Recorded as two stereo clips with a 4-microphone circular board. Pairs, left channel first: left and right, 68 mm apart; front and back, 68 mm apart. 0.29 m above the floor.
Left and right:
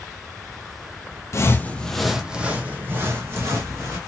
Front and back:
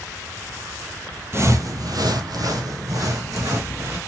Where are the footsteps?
130° left, 0.5 m; by 4.0 s 140° right, 1.6 m.